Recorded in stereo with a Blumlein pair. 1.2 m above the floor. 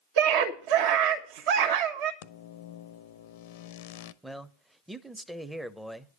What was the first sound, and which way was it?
A scream, 50° right.